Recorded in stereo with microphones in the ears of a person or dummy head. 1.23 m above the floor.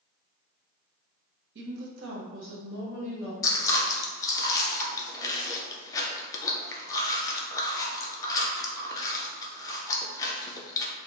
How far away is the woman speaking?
About 1.0 m.